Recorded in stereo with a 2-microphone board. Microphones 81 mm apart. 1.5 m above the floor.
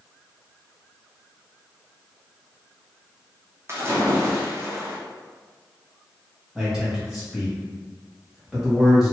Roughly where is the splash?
Right.